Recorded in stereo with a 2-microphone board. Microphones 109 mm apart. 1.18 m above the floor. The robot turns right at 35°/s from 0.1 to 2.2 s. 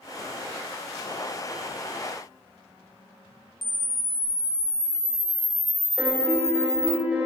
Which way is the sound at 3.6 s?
45° left (ahead or behind).